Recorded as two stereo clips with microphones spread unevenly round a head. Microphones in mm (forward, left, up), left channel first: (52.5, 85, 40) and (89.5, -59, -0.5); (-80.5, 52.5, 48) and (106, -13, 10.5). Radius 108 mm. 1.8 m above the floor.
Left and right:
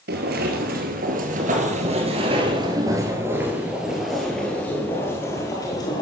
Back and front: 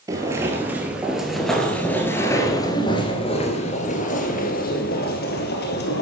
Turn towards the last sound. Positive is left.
turn(degrees=160)